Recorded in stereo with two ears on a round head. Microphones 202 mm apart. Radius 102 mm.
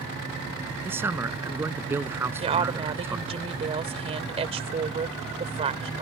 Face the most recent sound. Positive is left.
turn(degrees=-30)  # may be behind; listen again after turning